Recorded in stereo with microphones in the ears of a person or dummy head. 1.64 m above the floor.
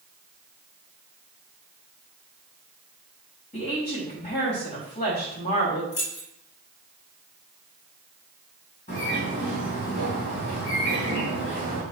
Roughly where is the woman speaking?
Left.